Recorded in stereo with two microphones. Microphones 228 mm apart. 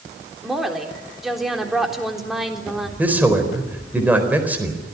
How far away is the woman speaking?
About 3.5 m.